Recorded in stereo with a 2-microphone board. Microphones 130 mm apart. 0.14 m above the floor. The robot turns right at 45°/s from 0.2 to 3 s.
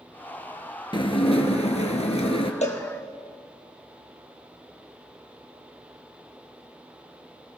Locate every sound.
0.9 s dishes clattering: 50° left, 1.4 m; by 2.5 s 120° left, 1.4 m
2.6 s a cowbell: 60° left (ahead or behind), 2.5 m; by 2.8 s 70° left (ahead or behind), 2.5 m